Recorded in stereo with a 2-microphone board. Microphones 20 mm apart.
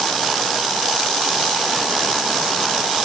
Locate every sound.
Only background noise.